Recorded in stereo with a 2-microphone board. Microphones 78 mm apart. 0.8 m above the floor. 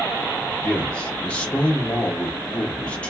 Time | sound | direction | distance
0.6 | a man speaking | 15° left (ahead or behind) | 1.4 m